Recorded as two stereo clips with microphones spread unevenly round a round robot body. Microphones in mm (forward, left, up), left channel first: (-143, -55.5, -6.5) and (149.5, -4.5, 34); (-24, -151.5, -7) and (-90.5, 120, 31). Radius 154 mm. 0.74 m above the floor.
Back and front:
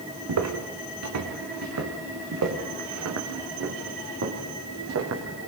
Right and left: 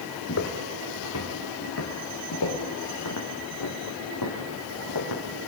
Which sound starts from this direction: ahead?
Footsteps, at 0.3 s.